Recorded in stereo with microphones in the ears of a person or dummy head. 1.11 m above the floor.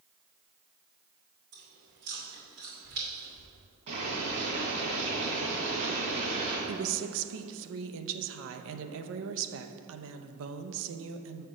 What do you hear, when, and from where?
1.5 s chewing: 50° right (ahead or behind), 2.5 m
3.9 s boiling: 30° right (ahead or behind), 2.5 m
6.7 s a woman speaking: 75° right (ahead or behind), 0.7 m